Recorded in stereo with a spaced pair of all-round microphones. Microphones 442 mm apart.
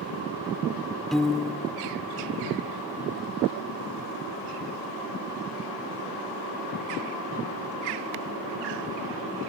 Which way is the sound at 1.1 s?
Centre (ahead or behind).